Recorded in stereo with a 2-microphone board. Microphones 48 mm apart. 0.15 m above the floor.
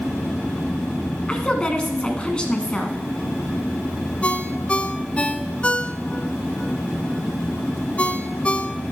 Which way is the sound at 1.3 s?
20° left (ahead or behind).